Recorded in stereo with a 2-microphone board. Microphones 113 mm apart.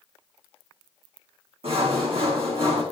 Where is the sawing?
60° right (ahead or behind), 4 m.